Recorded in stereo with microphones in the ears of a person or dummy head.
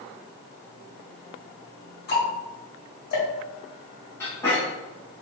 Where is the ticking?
55° left (ahead or behind), 1.5 m.